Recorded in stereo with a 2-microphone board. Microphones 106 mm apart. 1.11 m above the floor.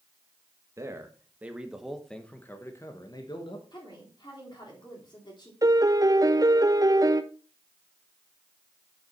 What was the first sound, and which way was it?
A man speaking, 25° right (ahead or behind).